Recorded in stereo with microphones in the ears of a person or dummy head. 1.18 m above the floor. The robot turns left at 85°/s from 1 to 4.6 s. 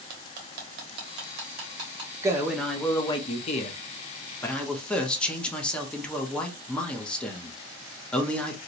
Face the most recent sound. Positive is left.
turn(degrees=10)